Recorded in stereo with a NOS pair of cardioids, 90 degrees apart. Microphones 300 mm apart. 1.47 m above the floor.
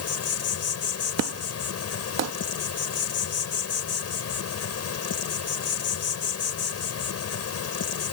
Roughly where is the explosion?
Ahead right.